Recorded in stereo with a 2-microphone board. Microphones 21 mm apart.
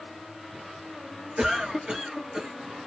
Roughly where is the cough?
Right.